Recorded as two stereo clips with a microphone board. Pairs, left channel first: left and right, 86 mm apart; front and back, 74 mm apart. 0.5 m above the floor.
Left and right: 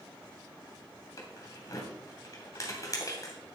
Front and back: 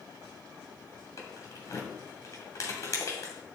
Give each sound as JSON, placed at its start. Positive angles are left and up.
{"t": 1.2, "sound": "keys jangling", "azimuth_deg": 40, "distance_m": 2.0}